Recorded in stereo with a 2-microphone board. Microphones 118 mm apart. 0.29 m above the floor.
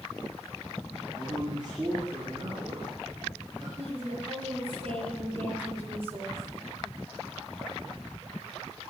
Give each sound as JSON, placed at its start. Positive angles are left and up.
{"t": 1.1, "sound": "a man speaking", "side_deg": -40, "distance_m": 5.0}
{"t": 3.8, "sound": "a woman speaking", "side_deg": -55, "distance_m": 6.5}